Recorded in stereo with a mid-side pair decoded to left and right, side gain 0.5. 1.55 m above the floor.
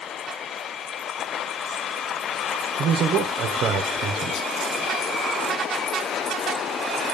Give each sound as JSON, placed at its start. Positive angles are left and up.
{"t": 2.8, "sound": "a man speaking", "azimuth_deg": -65, "distance_m": 1.2}